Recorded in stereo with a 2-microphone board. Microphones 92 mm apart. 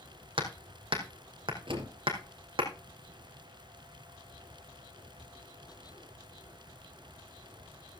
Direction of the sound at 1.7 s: 65° right (ahead or behind).